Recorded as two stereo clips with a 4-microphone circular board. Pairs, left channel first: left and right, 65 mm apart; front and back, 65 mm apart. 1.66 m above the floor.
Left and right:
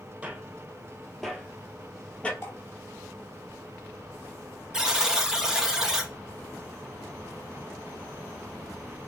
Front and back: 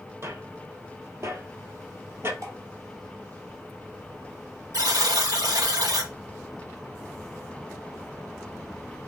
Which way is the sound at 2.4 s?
140° left.